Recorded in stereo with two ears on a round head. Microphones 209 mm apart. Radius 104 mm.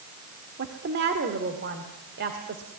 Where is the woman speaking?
45° right (ahead or behind), 1.9 m.